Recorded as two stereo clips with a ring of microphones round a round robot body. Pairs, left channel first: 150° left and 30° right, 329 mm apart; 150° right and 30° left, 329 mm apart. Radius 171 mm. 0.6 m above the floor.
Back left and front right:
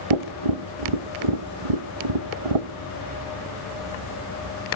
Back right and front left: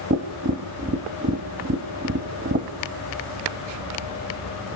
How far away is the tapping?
About 0.9 m.